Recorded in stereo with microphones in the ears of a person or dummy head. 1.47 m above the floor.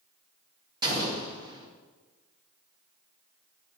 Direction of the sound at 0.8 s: 25° right (ahead or behind).